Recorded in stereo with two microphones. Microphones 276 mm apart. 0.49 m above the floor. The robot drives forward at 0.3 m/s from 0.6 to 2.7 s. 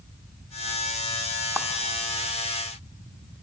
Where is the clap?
10° right (ahead or behind), 1.1 m.